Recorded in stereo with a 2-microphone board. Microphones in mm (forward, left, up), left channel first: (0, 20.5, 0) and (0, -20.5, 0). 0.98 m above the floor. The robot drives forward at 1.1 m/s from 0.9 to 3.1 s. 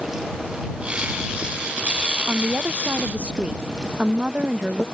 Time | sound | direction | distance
2.3 | a woman speaking | 40° right (ahead or behind) | ?